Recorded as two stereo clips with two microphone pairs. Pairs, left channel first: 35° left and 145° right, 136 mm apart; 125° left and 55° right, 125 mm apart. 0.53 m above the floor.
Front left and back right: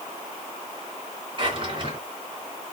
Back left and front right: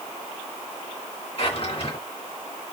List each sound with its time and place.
1.4 s a drawer: 165° left, 3 m